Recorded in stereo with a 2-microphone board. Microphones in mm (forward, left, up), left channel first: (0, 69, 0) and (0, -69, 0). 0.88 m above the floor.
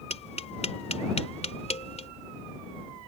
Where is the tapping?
50° left (ahead or behind).